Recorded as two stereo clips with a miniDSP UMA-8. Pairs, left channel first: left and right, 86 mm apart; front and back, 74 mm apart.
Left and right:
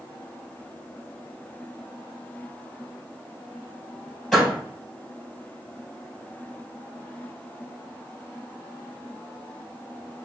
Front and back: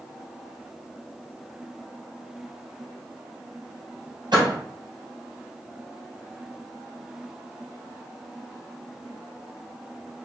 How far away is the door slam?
About 2.5 m.